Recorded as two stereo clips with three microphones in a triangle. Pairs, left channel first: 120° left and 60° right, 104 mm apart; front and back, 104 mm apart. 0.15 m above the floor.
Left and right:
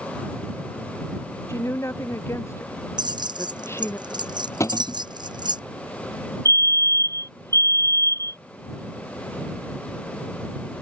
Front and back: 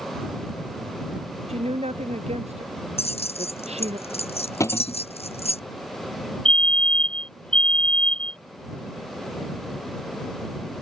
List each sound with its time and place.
1.5 s a woman speaking: 175° right
3.0 s keys jangling: 15° right
4.6 s a cupboard door: 60° left
6.5 s a fire alarm: 75° left